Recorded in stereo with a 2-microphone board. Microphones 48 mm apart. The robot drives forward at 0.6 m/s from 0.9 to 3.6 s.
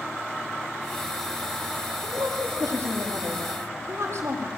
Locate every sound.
2.0 s a woman speaking: 75° right (ahead or behind), 5.5 m; by 4.5 s 65° right (ahead or behind), 5.5 m